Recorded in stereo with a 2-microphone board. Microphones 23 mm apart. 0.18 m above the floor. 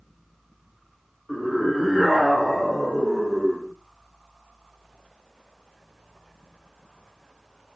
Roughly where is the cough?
I don't hear a cough.